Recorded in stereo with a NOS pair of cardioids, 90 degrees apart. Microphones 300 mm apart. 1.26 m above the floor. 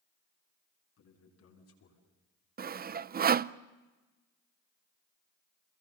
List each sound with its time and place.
1.0 s a man speaking: 60° left, 8 m; by 2.0 s 55° left, 9 m
2.6 s sawing: 30° right, 0.5 m